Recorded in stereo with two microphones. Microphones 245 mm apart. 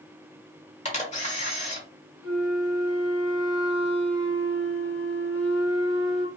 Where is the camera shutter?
25° left (ahead or behind), 1.2 m.